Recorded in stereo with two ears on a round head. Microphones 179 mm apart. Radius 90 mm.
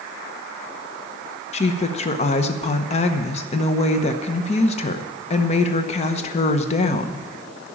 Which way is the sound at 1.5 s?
35° left (ahead or behind).